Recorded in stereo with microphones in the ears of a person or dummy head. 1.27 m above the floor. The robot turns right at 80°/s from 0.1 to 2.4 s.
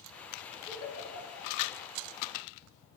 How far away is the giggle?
About 3.5 m.